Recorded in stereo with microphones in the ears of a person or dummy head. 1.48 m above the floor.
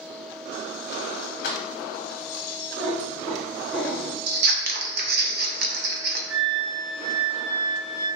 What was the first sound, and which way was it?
Keys jangling, 50° left (ahead or behind).